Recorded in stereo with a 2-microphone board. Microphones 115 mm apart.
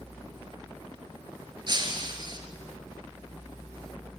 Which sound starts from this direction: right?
Breaking glass, at 1.7 s.